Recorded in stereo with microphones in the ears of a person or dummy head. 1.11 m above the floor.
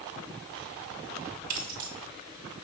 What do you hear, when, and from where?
1.5 s keys jangling: 50° right (ahead or behind), 1.6 m